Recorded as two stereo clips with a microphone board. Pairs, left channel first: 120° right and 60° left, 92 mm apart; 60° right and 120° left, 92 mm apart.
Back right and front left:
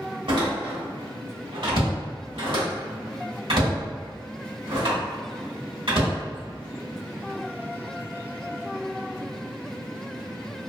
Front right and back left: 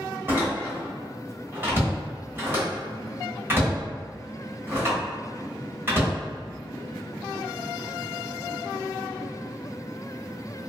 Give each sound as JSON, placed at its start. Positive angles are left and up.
{"t": 0.3, "sound": "a door slam", "azimuth_deg": 55, "distance_m": 1.2}